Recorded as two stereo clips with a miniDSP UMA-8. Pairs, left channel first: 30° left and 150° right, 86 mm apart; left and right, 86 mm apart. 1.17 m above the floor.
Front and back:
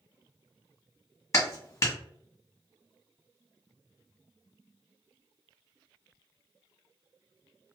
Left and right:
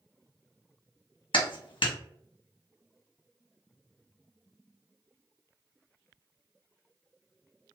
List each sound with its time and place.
1.3 s a clap: 80° left, 1.1 m